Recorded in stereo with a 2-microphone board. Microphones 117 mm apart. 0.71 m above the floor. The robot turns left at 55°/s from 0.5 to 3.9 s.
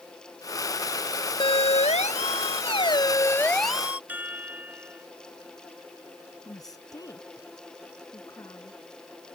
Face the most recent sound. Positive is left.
turn(degrees=35)  # may be behind; listen again after turning